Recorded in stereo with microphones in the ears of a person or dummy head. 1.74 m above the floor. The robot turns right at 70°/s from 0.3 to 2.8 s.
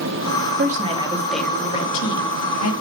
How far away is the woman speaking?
About 3.5 m.